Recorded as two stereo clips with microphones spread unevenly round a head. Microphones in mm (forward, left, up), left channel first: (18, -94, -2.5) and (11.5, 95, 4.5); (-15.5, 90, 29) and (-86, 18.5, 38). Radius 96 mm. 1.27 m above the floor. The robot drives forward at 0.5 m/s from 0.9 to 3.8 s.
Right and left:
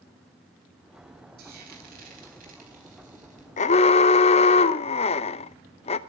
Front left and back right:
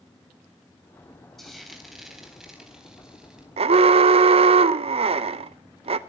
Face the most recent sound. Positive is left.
turn(degrees=-150)